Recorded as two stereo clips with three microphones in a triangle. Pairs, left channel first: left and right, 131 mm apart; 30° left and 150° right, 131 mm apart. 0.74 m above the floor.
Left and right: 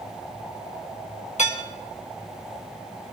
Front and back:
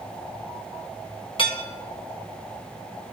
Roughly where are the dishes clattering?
Left.